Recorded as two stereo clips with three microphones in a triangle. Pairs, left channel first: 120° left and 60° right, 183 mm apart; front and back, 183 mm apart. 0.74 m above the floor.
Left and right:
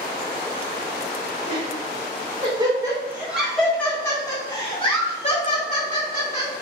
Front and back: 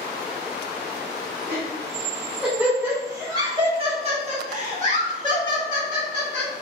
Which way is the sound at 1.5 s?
80° right.